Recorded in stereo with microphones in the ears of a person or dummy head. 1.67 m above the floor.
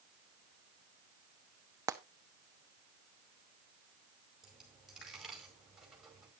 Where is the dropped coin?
Centre (ahead or behind), 4.5 m.